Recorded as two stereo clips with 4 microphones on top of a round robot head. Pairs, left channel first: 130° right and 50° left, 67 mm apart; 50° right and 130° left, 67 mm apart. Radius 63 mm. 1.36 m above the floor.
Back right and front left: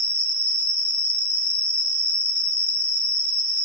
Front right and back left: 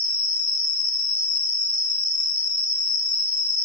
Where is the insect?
140° right, 2.5 m.